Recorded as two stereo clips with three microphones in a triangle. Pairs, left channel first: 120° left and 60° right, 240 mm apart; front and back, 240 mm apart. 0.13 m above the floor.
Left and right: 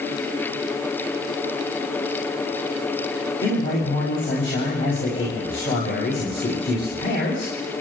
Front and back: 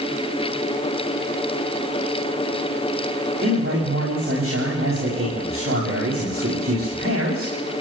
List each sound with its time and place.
3.4 s a man speaking: 150° left, 8 m